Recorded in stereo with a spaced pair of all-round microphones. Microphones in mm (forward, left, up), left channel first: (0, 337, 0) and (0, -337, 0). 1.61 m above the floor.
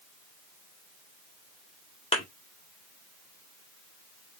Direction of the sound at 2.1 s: 10° left (ahead or behind).